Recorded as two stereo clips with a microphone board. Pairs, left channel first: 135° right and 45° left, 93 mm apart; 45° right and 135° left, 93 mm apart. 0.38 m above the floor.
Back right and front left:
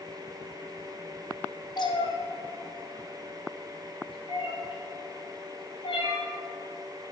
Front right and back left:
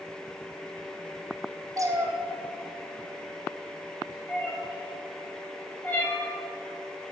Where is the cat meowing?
175° right, 1.5 m; by 6.3 s 110° right, 5.5 m.